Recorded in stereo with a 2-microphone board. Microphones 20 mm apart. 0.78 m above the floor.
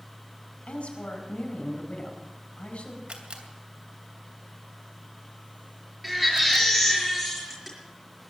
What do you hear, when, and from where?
0.7 s a woman speaking: 80° left, 4.5 m
3.1 s a camera shutter: 75° right (ahead or behind), 2.5 m
6.0 s a baby crying: 5° right (ahead or behind), 6 m